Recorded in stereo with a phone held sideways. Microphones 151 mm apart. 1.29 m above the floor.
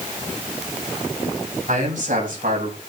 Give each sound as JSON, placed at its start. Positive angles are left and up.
{"t": 1.7, "sound": "a man speaking", "side_deg": -70, "distance_m": 7.5}